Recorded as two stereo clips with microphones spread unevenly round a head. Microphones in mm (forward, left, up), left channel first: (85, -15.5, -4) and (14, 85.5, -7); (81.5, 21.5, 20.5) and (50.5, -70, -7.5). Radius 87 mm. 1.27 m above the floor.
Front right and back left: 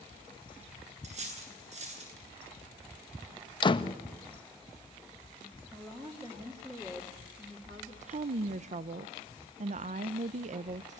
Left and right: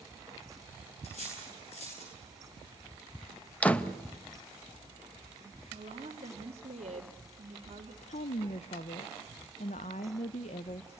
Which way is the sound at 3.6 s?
5° right.